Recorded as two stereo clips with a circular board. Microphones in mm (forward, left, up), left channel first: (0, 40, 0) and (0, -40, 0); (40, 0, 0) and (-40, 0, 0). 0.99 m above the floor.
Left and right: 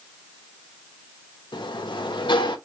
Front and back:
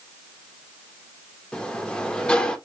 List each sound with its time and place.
1.5 s a sliding door: 80° left, 0.8 m